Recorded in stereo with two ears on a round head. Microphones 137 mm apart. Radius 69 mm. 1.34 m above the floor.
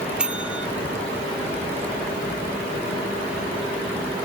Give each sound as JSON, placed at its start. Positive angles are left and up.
{"t": 0.2, "sound": "a bell", "side_deg": -5}